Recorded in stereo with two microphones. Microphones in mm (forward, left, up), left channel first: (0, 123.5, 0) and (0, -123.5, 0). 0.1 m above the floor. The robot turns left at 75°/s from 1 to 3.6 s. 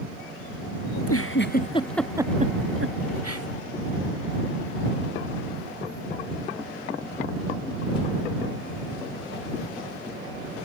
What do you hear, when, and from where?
0.9 s a giggle: 75° left (ahead or behind); by 3.5 s 70° right (ahead or behind)